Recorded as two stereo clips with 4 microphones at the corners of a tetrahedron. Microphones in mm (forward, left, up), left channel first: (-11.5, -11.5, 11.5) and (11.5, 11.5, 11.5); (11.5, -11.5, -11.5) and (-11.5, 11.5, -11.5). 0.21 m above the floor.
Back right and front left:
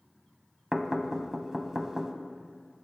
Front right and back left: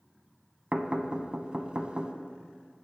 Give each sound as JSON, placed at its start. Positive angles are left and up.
{"t": 0.7, "sound": "knocking", "azimuth_deg": 110, "distance_m": 0.9}